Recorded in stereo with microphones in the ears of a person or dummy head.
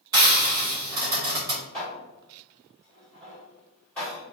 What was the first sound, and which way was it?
Frying, 15° right (ahead or behind).